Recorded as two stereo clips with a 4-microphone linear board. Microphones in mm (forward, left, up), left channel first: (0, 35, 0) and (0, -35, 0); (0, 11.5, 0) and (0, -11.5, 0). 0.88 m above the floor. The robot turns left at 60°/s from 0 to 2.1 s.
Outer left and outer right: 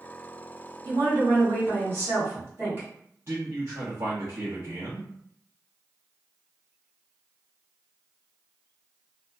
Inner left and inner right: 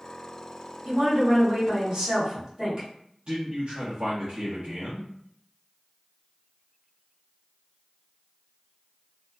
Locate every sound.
0.8 s a woman speaking: 70° right, 1.8 m; by 2.9 s 145° right, 1.8 m
3.3 s a man speaking: 40° right (ahead or behind), 1.1 m